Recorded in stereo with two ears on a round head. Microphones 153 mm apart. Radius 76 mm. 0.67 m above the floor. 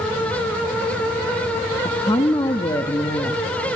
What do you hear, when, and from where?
1.9 s a woman speaking: 25° left (ahead or behind), 0.6 m